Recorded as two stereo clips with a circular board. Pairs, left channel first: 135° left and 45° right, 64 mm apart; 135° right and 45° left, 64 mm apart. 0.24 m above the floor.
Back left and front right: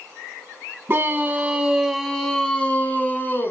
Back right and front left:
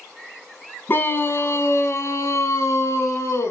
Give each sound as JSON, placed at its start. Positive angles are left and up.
{"t": 0.9, "sound": "a scream", "azimuth_deg": -90, "distance_m": 2.0}